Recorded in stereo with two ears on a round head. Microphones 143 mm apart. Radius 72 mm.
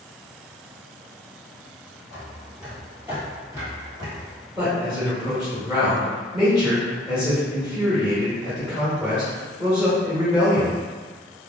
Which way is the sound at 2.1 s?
Centre (ahead or behind).